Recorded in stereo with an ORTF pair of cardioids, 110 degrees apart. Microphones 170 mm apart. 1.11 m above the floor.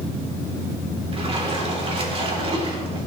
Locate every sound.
1.1 s a splash: 35° right, 3 m